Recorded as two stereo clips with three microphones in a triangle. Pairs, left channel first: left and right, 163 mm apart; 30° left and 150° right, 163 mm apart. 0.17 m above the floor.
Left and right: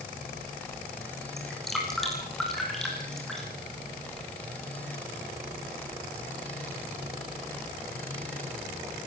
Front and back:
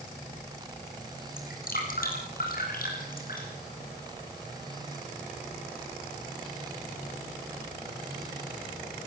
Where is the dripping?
Straight ahead, 7.5 m.